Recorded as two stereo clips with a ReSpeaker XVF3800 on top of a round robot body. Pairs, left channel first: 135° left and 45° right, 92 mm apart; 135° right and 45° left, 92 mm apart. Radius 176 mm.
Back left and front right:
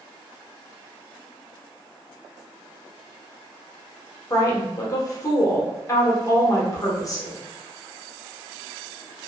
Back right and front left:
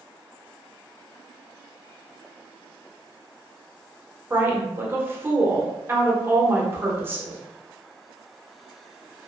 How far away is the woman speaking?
About 1.1 m.